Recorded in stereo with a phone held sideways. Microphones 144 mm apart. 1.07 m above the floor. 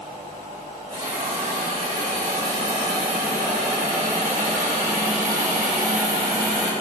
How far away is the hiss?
About 2 m.